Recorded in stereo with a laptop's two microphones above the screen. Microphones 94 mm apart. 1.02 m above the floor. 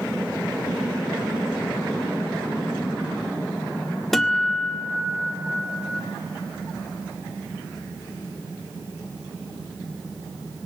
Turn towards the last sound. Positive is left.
turn(degrees=5)  # may be behind; listen again after turning